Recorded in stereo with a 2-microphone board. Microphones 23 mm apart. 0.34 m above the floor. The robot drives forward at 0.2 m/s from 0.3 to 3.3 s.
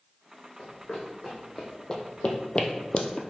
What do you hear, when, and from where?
0.6 s running footsteps: 30° left (ahead or behind), 1.3 m; by 3.2 s 50° left (ahead or behind), 0.5 m